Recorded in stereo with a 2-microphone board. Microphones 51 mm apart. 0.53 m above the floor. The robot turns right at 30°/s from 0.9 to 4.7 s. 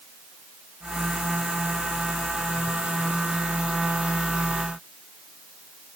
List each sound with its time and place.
Only background noise.